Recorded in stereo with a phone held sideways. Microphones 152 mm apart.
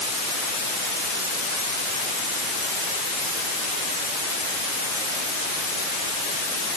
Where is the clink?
I don't hear a clink.